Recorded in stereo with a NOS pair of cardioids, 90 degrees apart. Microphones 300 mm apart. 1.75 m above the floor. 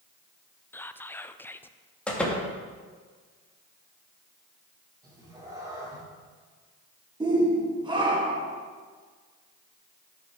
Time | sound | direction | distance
0.7 | whispering | 5° left | 0.6 m
2.1 | a door slam | 5° left | 2.5 m
5.0 | a cat meowing | 10° right | 3 m
7.2 | a shout | 15° right | 1.6 m